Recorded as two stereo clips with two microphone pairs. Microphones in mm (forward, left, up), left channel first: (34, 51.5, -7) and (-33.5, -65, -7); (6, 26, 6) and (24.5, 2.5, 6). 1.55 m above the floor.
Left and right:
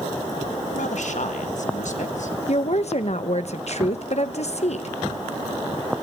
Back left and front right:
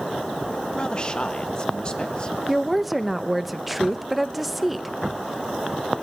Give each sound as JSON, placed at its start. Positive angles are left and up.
{"t": 0.8, "sound": "a man speaking", "azimuth_deg": 70, "distance_m": 1.6}
{"t": 2.5, "sound": "a woman speaking", "azimuth_deg": 35, "distance_m": 1.2}